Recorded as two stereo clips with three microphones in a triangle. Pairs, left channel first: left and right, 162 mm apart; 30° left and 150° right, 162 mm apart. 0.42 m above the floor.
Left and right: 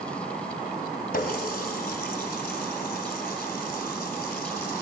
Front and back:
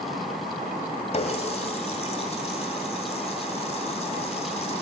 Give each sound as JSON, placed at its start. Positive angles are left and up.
{"t": 1.1, "sound": "a running tap", "azimuth_deg": 75, "distance_m": 1.9}